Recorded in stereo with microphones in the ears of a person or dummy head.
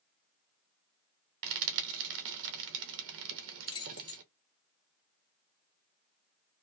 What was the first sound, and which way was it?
Frying, 70° right (ahead or behind).